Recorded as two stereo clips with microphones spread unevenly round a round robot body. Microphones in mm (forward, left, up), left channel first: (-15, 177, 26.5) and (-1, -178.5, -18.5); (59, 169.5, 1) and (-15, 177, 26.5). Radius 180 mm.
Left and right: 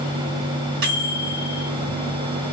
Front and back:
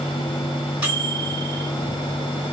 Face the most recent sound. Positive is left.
turn(degrees=-115)